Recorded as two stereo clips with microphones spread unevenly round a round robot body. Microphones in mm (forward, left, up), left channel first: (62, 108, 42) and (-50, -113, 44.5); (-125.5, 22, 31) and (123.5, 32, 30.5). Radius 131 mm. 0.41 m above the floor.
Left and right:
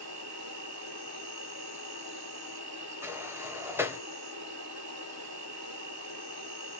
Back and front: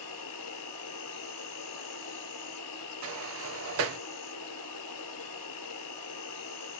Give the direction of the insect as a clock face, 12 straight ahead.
5 o'clock.